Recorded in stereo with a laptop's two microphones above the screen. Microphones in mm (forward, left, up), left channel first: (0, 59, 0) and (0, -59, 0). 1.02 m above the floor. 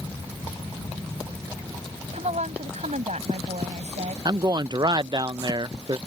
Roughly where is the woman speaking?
Right.